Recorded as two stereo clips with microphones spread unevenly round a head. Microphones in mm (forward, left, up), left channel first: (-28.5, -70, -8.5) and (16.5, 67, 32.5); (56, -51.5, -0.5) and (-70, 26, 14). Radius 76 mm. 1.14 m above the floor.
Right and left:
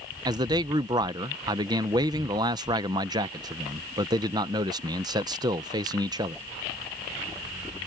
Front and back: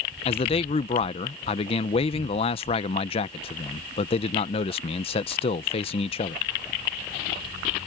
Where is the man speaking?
Straight ahead.